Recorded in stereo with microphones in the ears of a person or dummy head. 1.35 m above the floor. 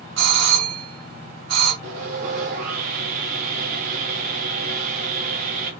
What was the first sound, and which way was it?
A doorbell, 75° right (ahead or behind).